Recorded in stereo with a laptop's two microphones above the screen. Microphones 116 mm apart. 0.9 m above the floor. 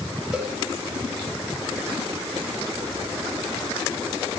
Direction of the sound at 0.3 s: 5° right (ahead or behind).